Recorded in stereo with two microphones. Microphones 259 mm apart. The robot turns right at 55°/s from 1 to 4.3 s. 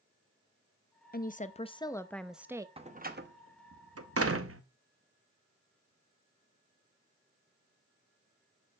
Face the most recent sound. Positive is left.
turn(degrees=-60)  # may be behind; listen again after turning